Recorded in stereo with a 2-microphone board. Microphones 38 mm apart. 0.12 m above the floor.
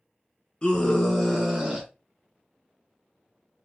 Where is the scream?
25° left (ahead or behind), 1.1 m; by 1.9 s 25° right (ahead or behind), 1.3 m.